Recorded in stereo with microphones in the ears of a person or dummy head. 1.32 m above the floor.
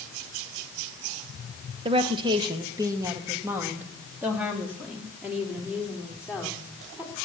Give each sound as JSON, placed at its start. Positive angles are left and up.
{"t": 1.9, "sound": "a woman speaking", "side_deg": -35, "distance_m": 1.0}